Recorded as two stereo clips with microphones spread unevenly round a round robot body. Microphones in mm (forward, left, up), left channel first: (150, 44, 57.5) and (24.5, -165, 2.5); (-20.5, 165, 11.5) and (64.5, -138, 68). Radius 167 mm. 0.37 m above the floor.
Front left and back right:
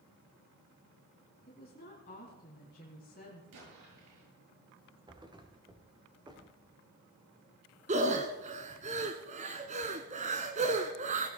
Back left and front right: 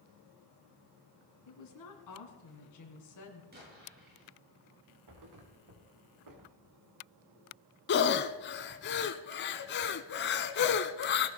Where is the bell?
No bell in this recording.